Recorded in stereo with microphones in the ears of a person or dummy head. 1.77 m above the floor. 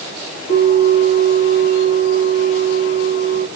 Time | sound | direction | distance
0.5 | a bell | 45° left (ahead or behind) | 3 m